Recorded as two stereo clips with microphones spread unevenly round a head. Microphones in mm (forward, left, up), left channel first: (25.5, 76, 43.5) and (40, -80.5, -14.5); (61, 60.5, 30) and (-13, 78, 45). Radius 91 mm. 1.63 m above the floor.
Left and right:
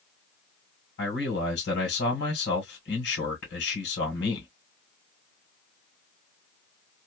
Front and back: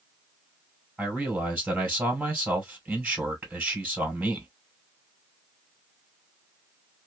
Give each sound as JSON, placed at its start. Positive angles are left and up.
{"t": 1.0, "sound": "a man speaking", "azimuth_deg": 95, "distance_m": 1.6}